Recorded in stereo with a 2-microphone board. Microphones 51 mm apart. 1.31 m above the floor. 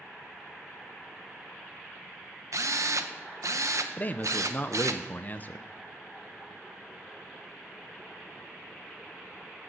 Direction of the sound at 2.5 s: 80° right.